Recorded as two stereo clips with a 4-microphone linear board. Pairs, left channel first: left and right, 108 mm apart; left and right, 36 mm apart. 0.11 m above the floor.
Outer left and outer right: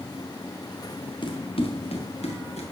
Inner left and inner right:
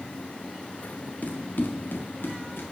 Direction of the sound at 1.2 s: 50° left (ahead or behind).